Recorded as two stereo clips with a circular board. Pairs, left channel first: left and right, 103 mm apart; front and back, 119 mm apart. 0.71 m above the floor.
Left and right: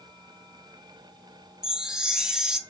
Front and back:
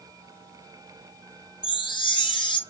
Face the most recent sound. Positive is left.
turn(degrees=-10)